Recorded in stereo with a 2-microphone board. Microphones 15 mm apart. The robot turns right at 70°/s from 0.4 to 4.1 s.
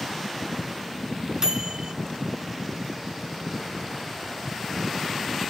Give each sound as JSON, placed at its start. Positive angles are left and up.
{"t": 1.4, "sound": "a microwave", "azimuth_deg": -115, "distance_m": 0.9}